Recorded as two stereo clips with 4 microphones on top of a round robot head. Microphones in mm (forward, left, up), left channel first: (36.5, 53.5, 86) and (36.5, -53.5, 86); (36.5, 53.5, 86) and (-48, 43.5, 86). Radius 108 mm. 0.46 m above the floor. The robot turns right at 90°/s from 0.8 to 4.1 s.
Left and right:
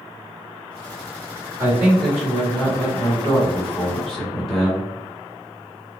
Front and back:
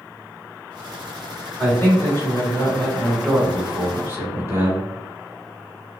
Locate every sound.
1.6 s a man speaking: 45° right, 1.6 m; by 4.9 s straight behind, 1.6 m